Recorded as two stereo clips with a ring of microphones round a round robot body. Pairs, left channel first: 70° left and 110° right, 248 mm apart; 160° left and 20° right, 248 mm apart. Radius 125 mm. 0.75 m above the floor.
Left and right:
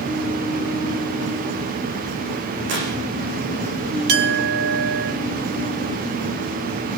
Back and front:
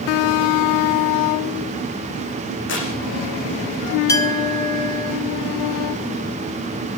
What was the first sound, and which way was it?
Tearing paper, 160° right.